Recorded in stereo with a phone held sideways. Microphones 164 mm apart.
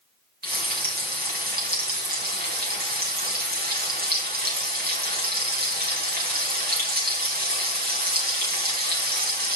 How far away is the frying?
About 3.5 m.